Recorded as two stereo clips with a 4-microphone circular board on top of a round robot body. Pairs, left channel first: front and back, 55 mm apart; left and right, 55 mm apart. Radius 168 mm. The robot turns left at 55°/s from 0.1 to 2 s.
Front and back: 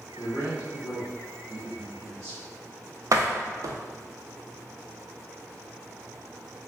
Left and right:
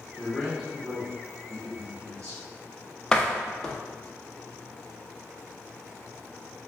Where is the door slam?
165° left, 0.6 m.